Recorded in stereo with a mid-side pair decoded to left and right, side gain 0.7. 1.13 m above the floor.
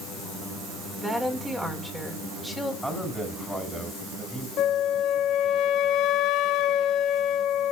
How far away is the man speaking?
About 7.5 m.